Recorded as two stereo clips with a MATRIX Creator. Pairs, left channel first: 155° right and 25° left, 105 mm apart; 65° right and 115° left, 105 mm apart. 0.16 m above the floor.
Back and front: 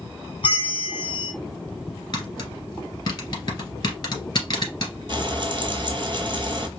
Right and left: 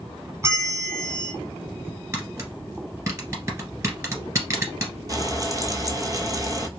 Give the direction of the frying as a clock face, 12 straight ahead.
10 o'clock.